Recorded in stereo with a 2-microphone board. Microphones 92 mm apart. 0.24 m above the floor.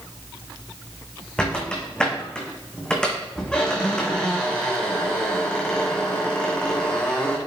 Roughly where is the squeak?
Centre.